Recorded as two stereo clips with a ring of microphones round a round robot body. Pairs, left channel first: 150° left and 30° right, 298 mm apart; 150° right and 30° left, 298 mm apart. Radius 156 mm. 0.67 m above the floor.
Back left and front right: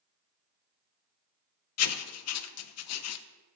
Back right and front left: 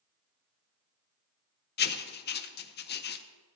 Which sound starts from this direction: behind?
Writing, at 1.8 s.